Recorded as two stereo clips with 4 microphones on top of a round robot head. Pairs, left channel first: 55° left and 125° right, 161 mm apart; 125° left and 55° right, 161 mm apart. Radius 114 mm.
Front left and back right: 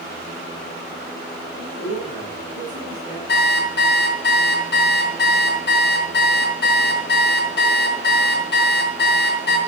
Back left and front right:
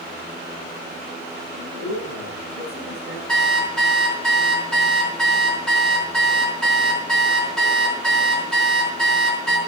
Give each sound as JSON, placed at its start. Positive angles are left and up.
{"t": 1.6, "sound": "a man speaking", "azimuth_deg": 105, "distance_m": 9.0}
{"t": 3.3, "sound": "an alarm clock", "azimuth_deg": 40, "distance_m": 4.5}